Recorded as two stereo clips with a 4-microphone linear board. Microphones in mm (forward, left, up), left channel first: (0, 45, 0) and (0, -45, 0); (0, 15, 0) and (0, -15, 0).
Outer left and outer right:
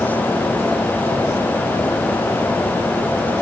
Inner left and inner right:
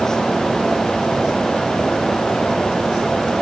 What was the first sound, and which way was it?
Only background noise.